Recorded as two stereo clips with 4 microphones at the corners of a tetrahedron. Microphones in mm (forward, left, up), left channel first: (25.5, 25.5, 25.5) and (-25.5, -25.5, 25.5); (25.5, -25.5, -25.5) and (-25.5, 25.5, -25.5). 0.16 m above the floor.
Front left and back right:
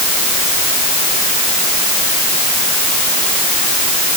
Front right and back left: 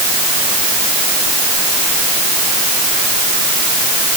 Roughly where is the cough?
I don't hear a cough.